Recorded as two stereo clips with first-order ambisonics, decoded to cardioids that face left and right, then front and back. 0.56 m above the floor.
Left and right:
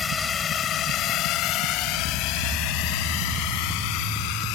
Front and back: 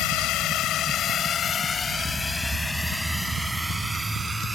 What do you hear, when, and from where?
0.0 s a drone: 20° left; by 4.5 s 100° left